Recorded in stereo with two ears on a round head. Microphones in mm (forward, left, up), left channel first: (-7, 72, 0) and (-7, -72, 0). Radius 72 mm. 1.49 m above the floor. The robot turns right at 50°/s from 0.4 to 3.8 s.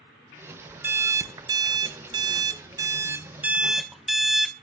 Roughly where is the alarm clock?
Centre.